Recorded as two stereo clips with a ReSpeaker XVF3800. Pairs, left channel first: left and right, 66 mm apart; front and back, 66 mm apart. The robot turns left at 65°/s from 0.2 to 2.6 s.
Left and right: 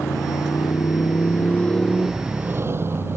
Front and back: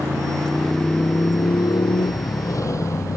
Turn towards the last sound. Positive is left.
turn(degrees=-40)